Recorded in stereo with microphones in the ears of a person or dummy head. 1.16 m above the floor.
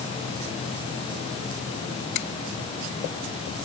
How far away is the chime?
I don't hear a chime.